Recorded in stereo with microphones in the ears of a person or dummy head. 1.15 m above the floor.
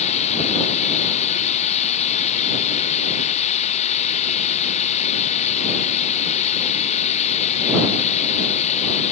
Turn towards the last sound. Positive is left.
turn(degrees=35)  # may be behind; listen again after turning